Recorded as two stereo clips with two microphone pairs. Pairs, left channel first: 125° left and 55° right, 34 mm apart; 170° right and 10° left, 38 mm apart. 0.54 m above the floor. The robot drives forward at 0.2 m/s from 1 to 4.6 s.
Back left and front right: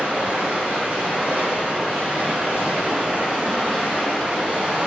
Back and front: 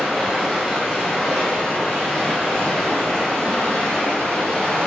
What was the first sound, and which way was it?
Running water, 85° right.